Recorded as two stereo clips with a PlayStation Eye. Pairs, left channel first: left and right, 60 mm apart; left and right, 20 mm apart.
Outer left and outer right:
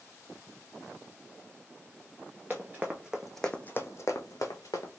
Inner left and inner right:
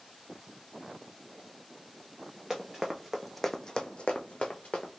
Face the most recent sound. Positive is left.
turn(degrees=75)  # may be behind; listen again after turning